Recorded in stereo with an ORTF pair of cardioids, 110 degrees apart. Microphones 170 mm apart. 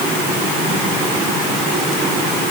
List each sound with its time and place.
Only background noise.